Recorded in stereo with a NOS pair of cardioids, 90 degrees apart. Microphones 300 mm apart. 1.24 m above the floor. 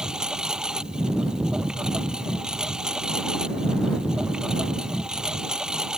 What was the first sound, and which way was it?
A lawn mower, straight ahead.